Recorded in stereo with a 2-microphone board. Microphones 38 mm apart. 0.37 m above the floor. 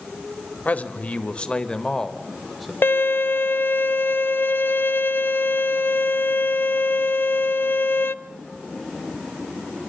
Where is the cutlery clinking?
No cutlery clinking in this recording.